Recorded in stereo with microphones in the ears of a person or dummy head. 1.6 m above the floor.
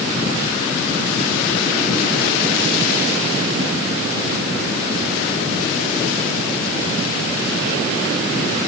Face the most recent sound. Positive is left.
No sound to turn to.